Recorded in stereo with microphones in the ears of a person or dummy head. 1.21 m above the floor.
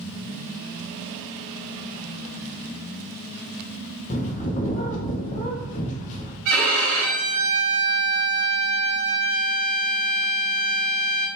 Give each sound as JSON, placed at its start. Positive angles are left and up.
{"t": 4.1, "sound": "a bird", "side_deg": 40, "distance_m": 0.9}
{"t": 6.5, "sound": "a violin", "side_deg": -60, "distance_m": 1.8}